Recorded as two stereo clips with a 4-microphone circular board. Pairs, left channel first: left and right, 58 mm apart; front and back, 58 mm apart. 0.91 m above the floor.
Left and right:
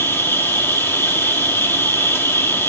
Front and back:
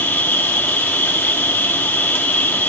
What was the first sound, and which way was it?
An insect, 55° left.